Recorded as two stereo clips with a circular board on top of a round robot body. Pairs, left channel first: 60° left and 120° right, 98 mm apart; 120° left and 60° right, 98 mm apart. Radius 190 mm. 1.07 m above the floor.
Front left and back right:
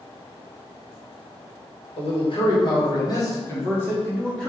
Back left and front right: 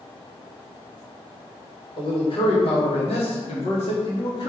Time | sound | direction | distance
2.0 | a man speaking | 90° left | 1.9 m